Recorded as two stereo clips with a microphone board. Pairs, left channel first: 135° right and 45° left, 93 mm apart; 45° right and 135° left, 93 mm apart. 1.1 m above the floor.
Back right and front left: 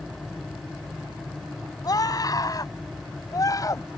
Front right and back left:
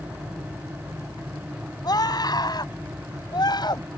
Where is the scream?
90° right; by 3.9 s 85° right.